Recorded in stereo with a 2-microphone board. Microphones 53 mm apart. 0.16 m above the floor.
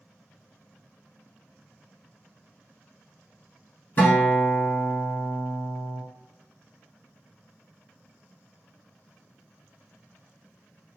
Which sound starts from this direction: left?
A guitar, at 4.0 s.